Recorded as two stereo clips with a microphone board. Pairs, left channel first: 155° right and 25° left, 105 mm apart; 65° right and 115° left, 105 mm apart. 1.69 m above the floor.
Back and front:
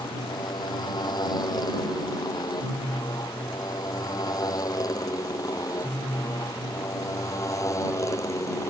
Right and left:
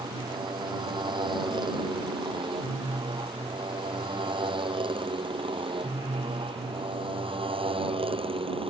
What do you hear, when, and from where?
0.0 s a motorcycle: 155° left; by 8.7 s 140° left